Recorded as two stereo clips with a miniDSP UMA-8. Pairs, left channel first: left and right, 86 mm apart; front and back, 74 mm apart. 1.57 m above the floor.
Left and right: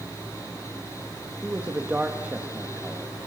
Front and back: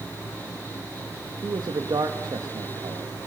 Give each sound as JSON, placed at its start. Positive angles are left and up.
{"t": 1.4, "sound": "a man speaking", "azimuth_deg": -160, "distance_m": 1.8}